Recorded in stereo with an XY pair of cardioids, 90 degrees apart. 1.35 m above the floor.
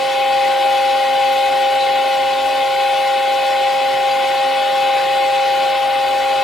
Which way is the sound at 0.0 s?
45° left.